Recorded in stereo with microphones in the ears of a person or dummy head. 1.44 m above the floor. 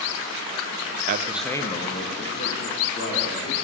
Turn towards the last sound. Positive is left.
turn(degrees=50)  # may be behind; listen again after turning